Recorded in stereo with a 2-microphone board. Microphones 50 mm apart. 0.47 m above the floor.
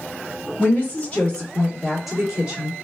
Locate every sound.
0.6 s a woman speaking: 35° left (ahead or behind), 1.7 m; by 2.7 s 25° right (ahead or behind), 1.2 m